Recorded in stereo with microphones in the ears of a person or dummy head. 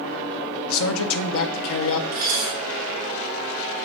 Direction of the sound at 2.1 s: 20° right (ahead or behind).